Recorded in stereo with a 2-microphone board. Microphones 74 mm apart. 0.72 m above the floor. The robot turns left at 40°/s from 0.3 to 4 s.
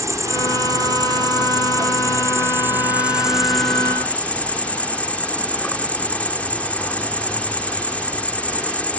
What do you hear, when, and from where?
0.0 s an insect: 50° right; by 9.0 s 160° left